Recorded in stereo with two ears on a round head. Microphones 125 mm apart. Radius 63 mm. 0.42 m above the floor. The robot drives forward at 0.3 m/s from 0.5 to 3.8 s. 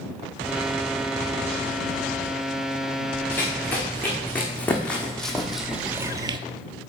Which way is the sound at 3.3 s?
15° left (ahead or behind).